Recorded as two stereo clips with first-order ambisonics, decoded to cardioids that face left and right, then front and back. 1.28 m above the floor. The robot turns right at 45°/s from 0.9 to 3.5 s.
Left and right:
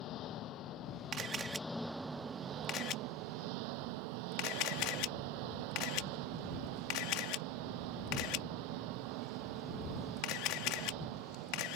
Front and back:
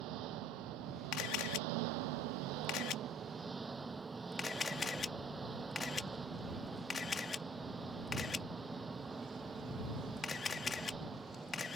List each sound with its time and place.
0.0 s an engine running: 140° left; by 11.8 s 105° right
1.1 s a camera shutter: 35° right; by 11.8 s 70° left